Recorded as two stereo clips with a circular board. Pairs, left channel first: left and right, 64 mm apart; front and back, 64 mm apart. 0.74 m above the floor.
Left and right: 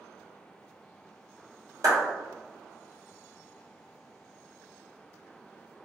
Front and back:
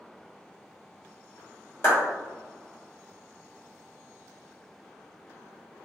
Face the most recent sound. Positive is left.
turn(degrees=-55)